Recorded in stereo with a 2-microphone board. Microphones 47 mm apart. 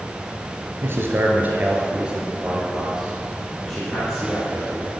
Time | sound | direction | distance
0.8 | a man speaking | 50° right (ahead or behind) | 2.5 m